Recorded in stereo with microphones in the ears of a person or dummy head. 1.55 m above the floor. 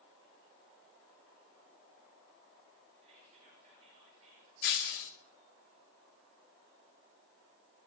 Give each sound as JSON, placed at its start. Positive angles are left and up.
{"t": 3.0, "sound": "whispering", "side_deg": -40, "distance_m": 2.5}
{"t": 4.6, "sound": "breaking glass", "side_deg": 55, "distance_m": 1.4}